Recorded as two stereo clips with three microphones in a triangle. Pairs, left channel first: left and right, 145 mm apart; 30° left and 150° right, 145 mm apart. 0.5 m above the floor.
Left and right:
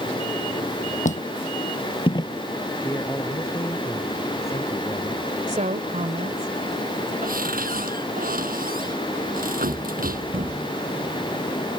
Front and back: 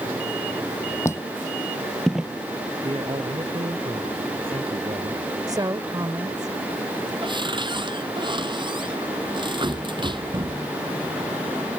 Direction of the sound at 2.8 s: 160° left.